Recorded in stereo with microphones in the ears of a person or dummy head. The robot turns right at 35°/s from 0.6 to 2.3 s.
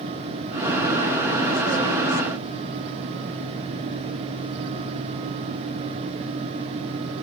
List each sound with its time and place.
Only background noise.